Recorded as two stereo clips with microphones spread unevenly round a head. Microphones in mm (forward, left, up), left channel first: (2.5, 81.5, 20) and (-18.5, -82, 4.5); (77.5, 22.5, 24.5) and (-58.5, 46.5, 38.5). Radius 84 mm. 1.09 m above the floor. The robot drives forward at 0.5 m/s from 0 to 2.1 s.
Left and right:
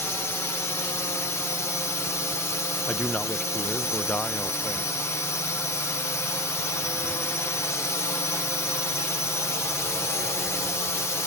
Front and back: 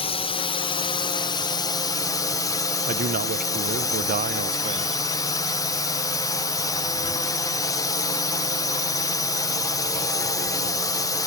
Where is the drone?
5° left; by 11.3 s 15° left.